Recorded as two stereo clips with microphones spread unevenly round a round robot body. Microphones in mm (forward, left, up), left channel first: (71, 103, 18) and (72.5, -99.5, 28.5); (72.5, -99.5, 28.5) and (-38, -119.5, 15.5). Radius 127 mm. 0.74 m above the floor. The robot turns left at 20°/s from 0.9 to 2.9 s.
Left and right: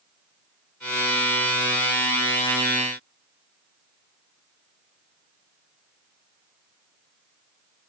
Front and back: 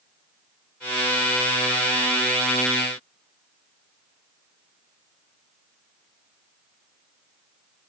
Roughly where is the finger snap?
No finger snap in this recording.